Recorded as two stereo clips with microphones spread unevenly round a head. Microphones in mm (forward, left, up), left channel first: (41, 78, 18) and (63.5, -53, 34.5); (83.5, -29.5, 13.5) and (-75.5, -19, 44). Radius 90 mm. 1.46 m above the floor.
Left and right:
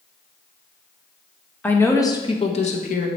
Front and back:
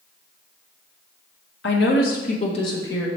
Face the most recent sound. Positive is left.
turn(degrees=80)